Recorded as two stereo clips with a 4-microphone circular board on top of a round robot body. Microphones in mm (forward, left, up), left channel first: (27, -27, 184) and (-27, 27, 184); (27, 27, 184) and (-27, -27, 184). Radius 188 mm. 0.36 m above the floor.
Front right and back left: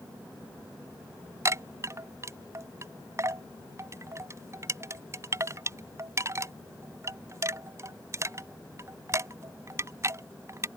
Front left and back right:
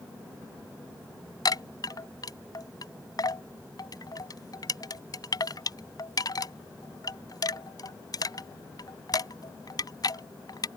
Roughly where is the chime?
Left.